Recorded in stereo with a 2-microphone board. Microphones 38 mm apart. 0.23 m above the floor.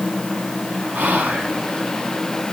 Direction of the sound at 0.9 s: 50° right (ahead or behind).